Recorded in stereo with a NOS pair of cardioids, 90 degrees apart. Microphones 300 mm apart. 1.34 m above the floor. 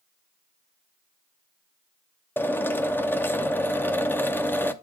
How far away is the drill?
About 0.6 m.